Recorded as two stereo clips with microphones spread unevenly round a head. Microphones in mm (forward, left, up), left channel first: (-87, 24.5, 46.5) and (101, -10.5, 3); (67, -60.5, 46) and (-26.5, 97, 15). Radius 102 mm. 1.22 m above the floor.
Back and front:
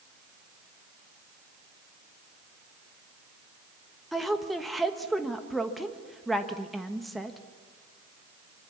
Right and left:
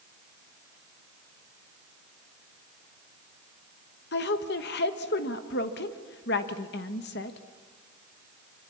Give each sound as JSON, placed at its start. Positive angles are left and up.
{"t": 4.1, "sound": "a woman speaking", "azimuth_deg": -100, "distance_m": 1.2}